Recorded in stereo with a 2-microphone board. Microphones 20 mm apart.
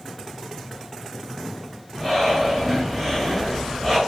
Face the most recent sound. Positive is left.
turn(degrees=0)  # may be behind; listen again after turning